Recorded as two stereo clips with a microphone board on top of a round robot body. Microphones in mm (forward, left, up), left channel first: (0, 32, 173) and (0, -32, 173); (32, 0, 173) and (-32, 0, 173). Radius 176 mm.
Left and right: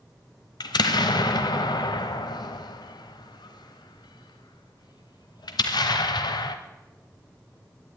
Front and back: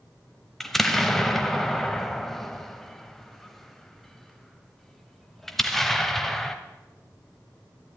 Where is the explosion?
85° left, 1.0 m.